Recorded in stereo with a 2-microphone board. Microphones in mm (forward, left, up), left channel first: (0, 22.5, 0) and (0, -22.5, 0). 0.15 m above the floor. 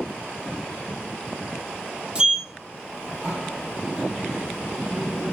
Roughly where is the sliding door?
Centre.